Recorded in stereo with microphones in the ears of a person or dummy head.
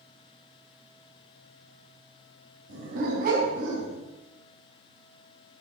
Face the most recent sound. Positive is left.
turn(degrees=-60)  # may be behind; listen again after turning